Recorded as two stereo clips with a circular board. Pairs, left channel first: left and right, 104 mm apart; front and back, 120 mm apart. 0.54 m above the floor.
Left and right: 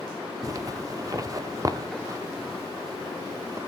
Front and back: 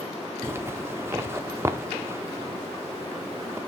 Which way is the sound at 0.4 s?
120° right.